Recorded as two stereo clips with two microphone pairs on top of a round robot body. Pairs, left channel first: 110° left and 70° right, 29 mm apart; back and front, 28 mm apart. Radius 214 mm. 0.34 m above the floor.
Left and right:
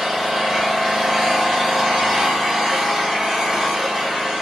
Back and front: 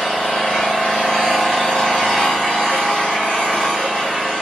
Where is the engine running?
135° right, 1.2 m.